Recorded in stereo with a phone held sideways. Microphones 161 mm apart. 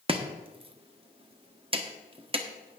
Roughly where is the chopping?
Right.